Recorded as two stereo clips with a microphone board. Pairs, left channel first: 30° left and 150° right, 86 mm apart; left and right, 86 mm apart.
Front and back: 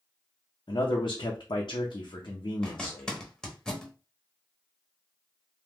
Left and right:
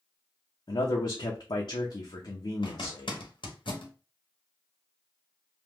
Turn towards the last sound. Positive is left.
turn(degrees=110)